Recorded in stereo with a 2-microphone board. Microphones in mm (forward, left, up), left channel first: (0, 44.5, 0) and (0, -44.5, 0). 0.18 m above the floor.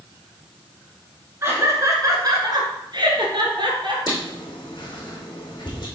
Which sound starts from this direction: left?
Writing, at 4.1 s.